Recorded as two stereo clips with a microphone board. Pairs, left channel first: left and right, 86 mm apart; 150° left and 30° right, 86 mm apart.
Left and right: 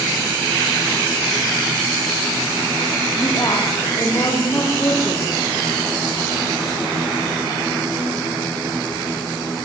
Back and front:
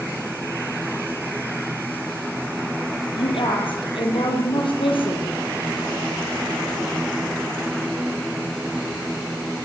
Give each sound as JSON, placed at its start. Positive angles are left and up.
{"t": 3.2, "sound": "a woman speaking", "azimuth_deg": 140, "distance_m": 8.5}